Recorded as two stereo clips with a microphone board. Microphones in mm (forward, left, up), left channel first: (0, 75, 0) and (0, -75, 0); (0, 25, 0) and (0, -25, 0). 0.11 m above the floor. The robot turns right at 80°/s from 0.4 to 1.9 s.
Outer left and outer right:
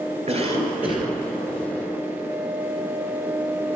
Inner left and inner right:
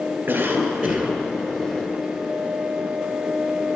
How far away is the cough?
About 2 m.